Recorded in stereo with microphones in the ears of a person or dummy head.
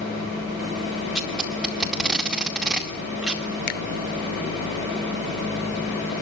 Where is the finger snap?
40° left (ahead or behind), 0.9 m.